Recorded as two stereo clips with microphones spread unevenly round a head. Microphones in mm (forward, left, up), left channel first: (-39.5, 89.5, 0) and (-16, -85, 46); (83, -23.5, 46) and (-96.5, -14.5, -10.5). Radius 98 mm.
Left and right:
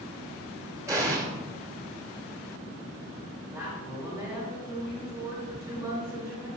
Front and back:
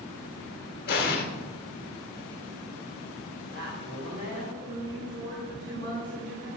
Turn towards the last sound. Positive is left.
turn(degrees=-160)